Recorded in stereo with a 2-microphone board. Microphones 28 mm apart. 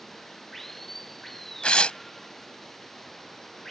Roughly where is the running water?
Centre.